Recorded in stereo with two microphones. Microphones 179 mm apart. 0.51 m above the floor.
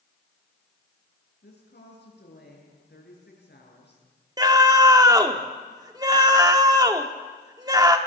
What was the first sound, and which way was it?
A woman speaking, 70° left (ahead or behind).